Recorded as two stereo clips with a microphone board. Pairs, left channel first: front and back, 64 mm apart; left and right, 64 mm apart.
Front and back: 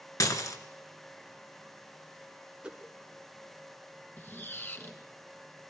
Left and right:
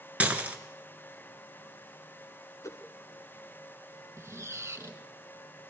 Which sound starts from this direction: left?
A whoosh, at 2.6 s.